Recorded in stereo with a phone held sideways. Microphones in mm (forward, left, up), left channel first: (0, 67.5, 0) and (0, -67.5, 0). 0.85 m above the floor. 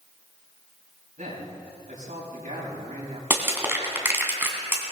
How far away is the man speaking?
About 5.5 m.